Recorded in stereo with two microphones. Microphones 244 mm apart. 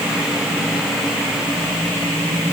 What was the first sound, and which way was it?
Only background noise.